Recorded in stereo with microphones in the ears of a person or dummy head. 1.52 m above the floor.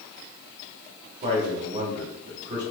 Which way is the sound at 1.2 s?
35° right (ahead or behind).